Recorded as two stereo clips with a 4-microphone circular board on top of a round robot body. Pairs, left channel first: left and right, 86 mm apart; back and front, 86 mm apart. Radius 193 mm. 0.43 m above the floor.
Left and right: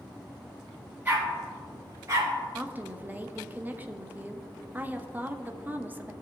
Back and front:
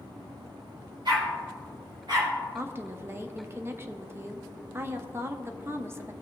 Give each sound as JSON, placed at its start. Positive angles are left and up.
{"t": 1.1, "sound": "a dog barking", "azimuth_deg": -20, "distance_m": 3.5}
{"t": 2.5, "sound": "a woman speaking", "azimuth_deg": -35, "distance_m": 1.1}